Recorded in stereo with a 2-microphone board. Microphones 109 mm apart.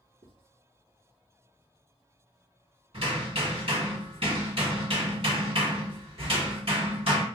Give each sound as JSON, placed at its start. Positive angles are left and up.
{"t": 0.2, "sound": "writing", "side_deg": -70, "distance_m": 1.4}
{"t": 2.9, "sound": "hammering", "side_deg": -60, "distance_m": 2.0}